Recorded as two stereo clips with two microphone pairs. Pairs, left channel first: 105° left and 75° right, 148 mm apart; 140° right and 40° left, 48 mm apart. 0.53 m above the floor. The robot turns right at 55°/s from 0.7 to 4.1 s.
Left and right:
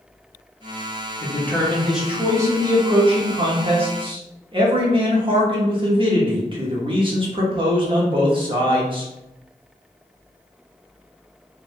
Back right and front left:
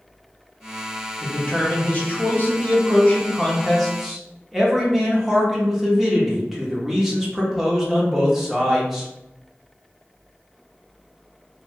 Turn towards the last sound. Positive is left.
turn(degrees=-45)